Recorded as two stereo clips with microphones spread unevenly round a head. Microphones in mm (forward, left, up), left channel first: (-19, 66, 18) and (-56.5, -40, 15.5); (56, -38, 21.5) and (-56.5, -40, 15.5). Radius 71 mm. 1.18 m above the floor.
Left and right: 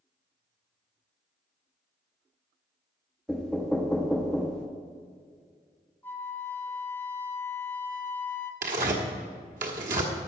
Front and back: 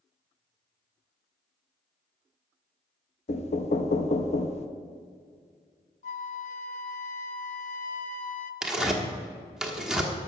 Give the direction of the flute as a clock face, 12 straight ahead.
12 o'clock.